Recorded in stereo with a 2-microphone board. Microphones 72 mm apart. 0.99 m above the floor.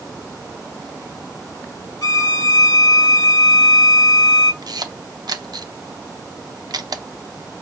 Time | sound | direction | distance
2.0 | a violin | 50° left (ahead or behind) | 0.8 m
4.6 | a camera shutter | 65° right (ahead or behind) | 0.6 m